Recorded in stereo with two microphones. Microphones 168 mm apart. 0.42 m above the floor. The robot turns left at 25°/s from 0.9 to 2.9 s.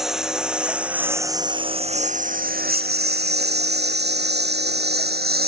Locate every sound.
0.0 s a lawn mower: centre (ahead or behind); by 5.5 s 70° right (ahead or behind)